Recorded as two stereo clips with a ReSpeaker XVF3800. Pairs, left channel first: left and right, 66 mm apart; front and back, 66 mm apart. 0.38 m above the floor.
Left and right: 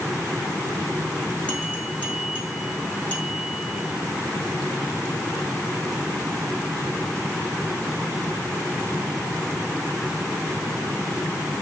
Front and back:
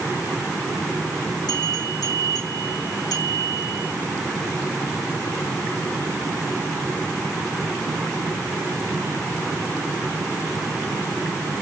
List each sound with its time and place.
1.5 s a bell: 15° left, 6.5 m